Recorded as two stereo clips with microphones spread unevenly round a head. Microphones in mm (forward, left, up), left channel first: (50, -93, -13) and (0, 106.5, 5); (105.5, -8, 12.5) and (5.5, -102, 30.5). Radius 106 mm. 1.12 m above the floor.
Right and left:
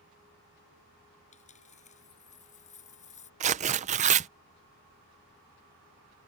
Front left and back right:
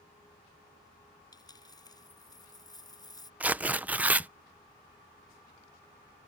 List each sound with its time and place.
1.3 s a dropped coin: 20° right
3.4 s tearing paper: 140° left